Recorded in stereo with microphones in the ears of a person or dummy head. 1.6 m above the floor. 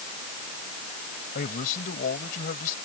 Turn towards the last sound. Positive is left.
turn(degrees=55)  # may be behind; listen again after turning